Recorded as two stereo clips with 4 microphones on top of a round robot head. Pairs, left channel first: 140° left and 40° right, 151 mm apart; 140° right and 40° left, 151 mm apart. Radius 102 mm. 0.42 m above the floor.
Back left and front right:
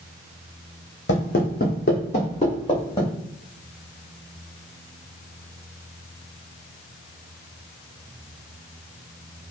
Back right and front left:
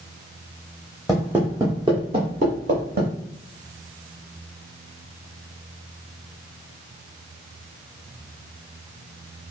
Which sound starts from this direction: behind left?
Footsteps, at 1.1 s.